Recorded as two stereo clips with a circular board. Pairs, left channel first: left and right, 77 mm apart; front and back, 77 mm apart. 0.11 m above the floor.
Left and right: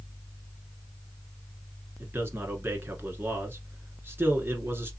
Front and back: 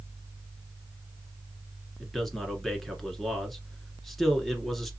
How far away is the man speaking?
About 1.3 m.